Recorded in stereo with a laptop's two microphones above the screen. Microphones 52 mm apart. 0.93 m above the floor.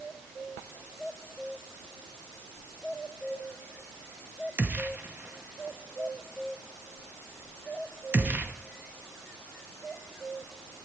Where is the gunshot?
35° right (ahead or behind), 0.8 m.